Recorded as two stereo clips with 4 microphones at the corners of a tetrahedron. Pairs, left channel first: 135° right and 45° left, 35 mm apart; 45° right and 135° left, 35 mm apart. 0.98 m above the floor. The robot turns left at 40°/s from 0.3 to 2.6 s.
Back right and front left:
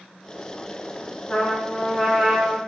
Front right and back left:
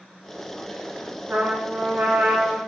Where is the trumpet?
165° left, 1.9 m; by 2.6 s 110° left, 1.9 m.